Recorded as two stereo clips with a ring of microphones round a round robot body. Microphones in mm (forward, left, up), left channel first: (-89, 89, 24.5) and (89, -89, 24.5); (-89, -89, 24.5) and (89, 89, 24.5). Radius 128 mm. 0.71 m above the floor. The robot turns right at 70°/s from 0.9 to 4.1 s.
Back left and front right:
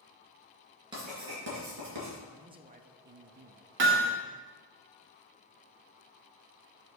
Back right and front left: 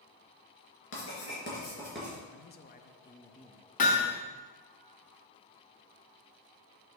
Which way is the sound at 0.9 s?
120° right.